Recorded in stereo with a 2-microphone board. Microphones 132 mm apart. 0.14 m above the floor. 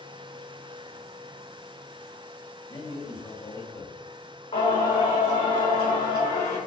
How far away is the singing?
About 3.5 m.